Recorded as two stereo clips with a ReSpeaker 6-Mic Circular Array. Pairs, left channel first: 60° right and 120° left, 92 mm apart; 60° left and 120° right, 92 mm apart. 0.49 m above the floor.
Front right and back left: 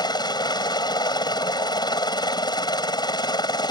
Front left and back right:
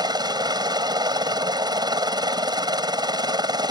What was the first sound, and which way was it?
A helicopter, 90° right.